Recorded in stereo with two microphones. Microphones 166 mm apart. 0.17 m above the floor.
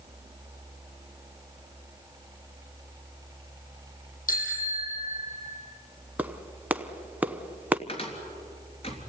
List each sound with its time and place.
4.3 s a bicycle bell: 55° left (ahead or behind), 5 m; by 5.5 s 50° left (ahead or behind), 4 m
6.2 s a clap: 10° right (ahead or behind), 0.9 m
7.9 s a cupboard door: 35° left (ahead or behind), 3.5 m